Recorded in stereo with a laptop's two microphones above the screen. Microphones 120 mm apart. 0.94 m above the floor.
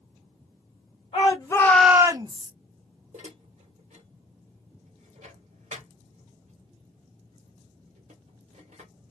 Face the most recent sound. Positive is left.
turn(degrees=-85)